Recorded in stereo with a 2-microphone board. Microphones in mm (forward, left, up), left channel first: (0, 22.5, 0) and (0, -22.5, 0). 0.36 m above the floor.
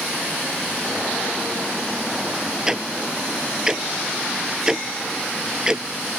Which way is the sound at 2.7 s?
15° right (ahead or behind).